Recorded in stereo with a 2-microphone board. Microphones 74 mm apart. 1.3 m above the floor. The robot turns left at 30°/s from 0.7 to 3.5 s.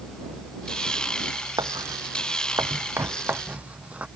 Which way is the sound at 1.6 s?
75° right (ahead or behind).